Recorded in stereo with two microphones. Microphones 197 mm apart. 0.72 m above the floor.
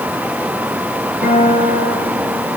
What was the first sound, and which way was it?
A guitar, 70° right (ahead or behind).